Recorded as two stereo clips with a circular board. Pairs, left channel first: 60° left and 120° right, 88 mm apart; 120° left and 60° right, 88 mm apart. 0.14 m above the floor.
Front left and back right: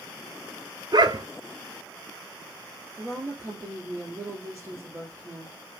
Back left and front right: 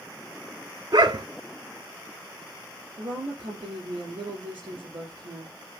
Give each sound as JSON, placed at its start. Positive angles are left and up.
{"t": 0.9, "sound": "a dog barking", "azimuth_deg": -90, "distance_m": 0.5}
{"t": 3.0, "sound": "a woman speaking", "azimuth_deg": -60, "distance_m": 4.0}